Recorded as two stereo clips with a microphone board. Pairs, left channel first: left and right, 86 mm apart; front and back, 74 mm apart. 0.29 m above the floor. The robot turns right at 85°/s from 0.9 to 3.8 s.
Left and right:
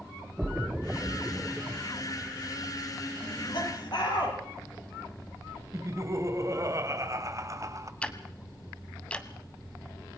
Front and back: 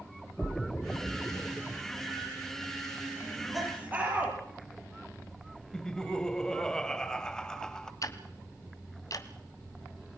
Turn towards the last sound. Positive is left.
turn(degrees=15)